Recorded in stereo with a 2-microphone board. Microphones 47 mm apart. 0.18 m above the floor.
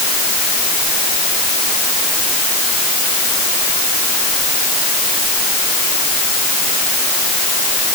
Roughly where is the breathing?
No breathing in this recording.